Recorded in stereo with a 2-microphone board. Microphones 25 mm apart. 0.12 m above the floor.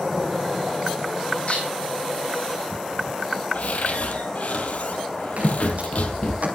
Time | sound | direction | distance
1.5 | dishes clattering | 55° left (ahead or behind) | 4.5 m
3.5 | a cupboard door | 65° left (ahead or behind) | 1.9 m
5.4 | footsteps | 65° right (ahead or behind) | 6.5 m